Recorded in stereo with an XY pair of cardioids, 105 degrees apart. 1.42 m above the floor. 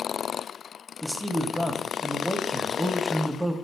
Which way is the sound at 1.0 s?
5° right.